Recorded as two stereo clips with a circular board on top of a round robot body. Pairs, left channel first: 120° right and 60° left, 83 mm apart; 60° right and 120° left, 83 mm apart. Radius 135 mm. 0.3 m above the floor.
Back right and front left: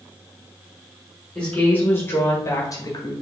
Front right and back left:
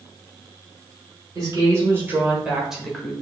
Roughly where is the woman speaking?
Behind.